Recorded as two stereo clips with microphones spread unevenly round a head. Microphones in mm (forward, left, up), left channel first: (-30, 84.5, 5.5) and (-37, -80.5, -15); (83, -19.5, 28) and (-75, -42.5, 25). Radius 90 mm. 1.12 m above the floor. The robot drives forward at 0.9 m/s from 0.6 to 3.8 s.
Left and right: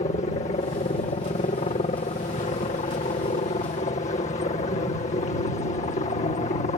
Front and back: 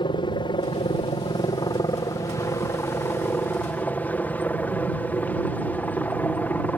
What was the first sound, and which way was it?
A helicopter, 55° left.